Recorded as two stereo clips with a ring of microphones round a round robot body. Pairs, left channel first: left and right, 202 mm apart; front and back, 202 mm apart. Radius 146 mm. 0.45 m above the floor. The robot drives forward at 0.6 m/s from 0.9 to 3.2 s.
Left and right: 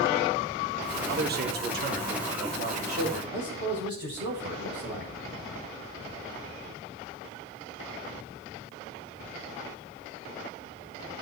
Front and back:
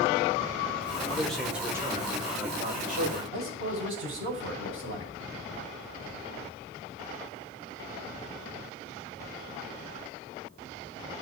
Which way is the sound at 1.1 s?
80° right.